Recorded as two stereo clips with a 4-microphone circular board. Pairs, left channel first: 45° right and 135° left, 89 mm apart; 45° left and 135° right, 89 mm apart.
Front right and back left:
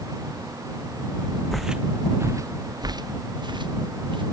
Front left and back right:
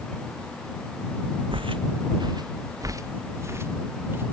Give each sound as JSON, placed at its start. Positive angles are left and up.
{"t": 1.5, "sound": "footsteps", "azimuth_deg": -130}